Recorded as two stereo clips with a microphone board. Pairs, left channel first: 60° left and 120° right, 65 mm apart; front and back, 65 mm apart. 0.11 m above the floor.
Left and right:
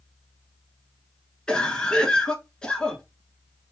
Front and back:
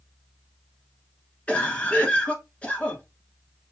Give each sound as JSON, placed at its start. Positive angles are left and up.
{"t": 1.5, "sound": "a cough", "azimuth_deg": 10, "distance_m": 1.1}